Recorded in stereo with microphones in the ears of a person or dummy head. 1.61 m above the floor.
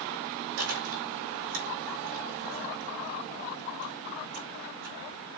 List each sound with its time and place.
0.6 s chewing: 70° right (ahead or behind), 4.5 m